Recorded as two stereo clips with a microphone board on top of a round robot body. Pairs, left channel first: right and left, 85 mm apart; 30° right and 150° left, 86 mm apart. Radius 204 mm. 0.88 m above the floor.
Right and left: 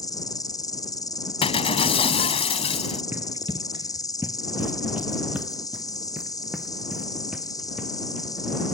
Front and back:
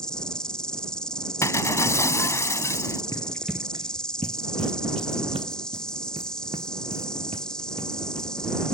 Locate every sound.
0.0 s an insect: 110° right
1.4 s breaking glass: 90° right
3.1 s running footsteps: 20° left; by 8.3 s 170° left